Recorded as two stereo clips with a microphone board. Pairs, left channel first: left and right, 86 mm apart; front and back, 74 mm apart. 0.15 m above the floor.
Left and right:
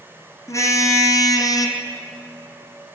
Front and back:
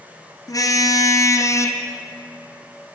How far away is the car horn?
About 2.5 m.